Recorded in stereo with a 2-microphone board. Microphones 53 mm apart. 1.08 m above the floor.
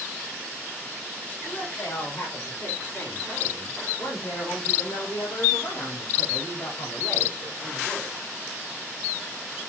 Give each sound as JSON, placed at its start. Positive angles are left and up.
{"t": 1.4, "sound": "a woman speaking", "side_deg": 45, "distance_m": 4.5}